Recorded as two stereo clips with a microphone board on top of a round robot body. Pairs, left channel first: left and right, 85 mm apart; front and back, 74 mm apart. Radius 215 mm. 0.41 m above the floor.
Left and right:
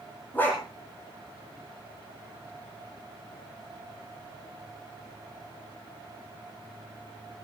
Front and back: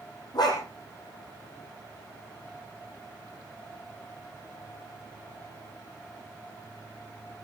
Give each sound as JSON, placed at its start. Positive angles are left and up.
{"t": 0.3, "sound": "a dog barking", "azimuth_deg": 20, "distance_m": 9.0}